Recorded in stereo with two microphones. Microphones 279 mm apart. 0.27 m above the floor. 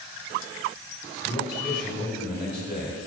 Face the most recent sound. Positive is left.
turn(degrees=35)  # may be behind; listen again after turning